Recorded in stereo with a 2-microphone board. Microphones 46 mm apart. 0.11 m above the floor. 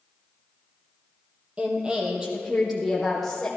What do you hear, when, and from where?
1.6 s a woman speaking: 25° right (ahead or behind), 3 m; by 3.5 s 10° left (ahead or behind), 4.5 m